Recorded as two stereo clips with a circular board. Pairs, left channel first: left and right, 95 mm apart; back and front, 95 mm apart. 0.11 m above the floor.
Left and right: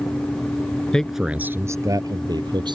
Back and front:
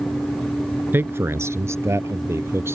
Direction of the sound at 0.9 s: 25° left.